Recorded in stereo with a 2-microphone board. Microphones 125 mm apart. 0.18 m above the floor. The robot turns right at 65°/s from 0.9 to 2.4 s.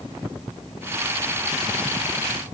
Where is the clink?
No clink in this recording.